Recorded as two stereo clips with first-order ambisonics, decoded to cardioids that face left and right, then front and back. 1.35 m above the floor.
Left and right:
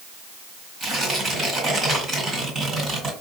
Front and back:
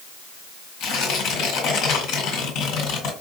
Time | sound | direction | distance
0.8 | tearing paper | 30° right | 1.9 m